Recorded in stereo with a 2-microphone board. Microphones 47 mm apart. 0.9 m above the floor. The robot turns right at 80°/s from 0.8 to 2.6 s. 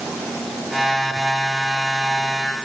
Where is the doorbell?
I don't hear a doorbell.